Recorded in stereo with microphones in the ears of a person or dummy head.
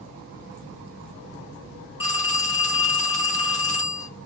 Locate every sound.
2.0 s a phone ringing: 30° left (ahead or behind), 1.2 m